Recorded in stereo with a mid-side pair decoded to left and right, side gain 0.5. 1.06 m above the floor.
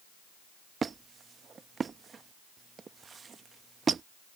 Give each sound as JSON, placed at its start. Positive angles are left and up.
{"t": 0.8, "sound": "a squeak", "azimuth_deg": -35}